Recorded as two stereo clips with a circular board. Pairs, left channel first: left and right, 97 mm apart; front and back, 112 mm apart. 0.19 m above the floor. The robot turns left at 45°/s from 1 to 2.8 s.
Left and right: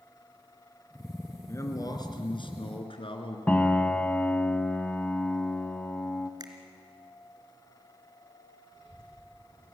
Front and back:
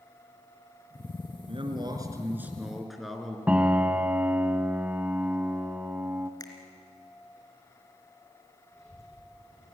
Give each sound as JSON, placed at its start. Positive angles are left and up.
{"t": 1.5, "sound": "a man speaking", "azimuth_deg": 150, "distance_m": 3.0}
{"t": 3.5, "sound": "a piano", "azimuth_deg": 125, "distance_m": 1.2}
{"t": 6.4, "sound": "a finger snap", "azimuth_deg": -50, "distance_m": 2.5}
{"t": 8.7, "sound": "a child speaking", "azimuth_deg": -65, "distance_m": 7.0}